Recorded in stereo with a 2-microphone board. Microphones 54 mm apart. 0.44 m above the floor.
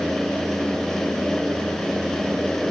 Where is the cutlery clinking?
I don't hear cutlery clinking.